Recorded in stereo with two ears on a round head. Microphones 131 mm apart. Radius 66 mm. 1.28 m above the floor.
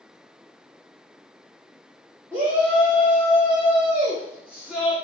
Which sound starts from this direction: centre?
A shout, at 2.3 s.